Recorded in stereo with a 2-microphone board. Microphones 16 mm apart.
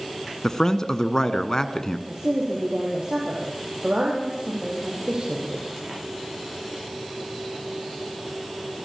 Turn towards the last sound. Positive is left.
turn(degrees=-60)  # may be behind; listen again after turning